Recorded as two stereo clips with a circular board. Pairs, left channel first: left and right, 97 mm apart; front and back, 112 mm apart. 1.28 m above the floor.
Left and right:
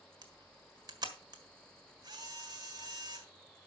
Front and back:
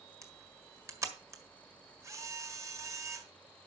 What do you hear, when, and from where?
0.2 s a camera shutter: 125° right, 1.6 m